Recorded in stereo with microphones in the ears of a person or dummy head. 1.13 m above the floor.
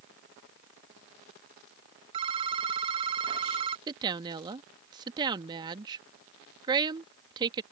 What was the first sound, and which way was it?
A phone ringing, 30° right (ahead or behind).